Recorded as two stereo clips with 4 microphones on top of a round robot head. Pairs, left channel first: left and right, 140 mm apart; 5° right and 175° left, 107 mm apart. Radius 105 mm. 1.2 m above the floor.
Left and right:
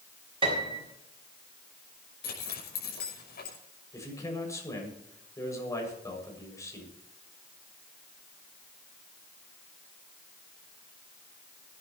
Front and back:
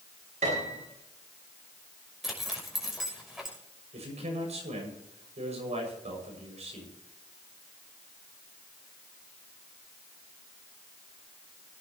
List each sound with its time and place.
0.4 s a piano: 145° right, 6 m
2.2 s a zipper: 90° left, 6 m
3.9 s a man speaking: 160° left, 7 m